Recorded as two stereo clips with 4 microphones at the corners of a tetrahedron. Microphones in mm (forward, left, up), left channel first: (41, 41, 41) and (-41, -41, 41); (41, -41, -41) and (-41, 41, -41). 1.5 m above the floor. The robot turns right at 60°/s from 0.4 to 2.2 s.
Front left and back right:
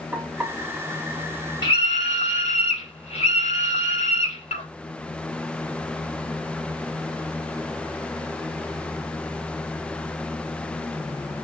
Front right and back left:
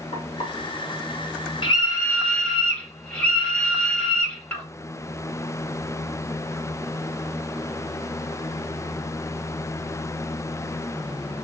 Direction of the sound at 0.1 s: 55° right.